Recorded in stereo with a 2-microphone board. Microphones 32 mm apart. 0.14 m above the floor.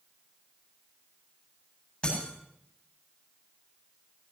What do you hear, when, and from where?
2.0 s breaking glass: 20° left (ahead or behind), 8.5 m